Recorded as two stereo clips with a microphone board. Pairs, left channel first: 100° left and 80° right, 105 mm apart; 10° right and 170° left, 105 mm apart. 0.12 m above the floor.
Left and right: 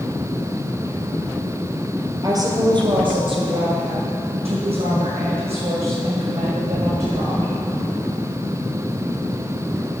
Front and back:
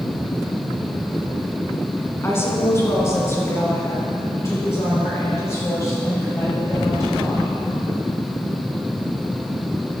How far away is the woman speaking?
About 1.6 m.